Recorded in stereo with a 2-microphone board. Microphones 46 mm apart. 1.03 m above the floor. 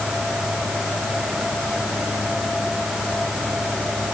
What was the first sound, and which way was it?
Only background noise.